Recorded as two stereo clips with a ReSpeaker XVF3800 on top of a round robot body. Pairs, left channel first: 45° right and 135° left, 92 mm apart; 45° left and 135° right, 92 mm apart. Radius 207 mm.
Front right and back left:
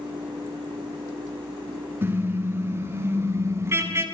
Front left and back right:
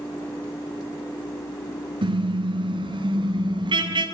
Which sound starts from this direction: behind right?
A car horn, at 2.0 s.